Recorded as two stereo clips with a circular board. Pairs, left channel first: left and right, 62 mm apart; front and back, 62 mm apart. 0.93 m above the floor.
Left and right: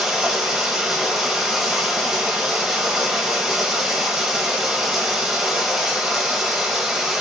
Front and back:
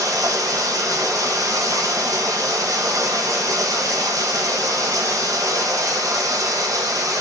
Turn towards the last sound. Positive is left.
turn(degrees=-175)